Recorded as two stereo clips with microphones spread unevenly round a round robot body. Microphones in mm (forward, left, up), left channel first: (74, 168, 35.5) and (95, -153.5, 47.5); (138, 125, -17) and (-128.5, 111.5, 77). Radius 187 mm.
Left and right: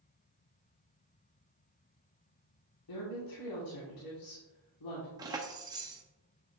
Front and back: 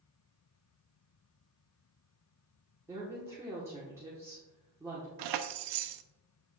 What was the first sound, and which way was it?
A woman speaking, 95° left.